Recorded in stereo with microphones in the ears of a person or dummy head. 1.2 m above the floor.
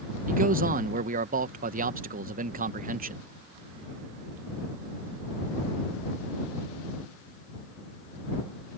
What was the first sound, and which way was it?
A man speaking, 40° right (ahead or behind).